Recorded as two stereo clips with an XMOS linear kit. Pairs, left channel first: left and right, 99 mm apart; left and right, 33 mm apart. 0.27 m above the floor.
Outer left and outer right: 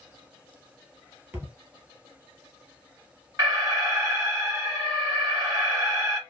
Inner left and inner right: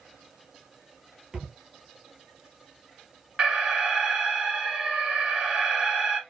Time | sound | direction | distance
1.3 | a thud | 25° right (ahead or behind) | 2.5 m
3.4 | an alarm | 30° right (ahead or behind) | 2.0 m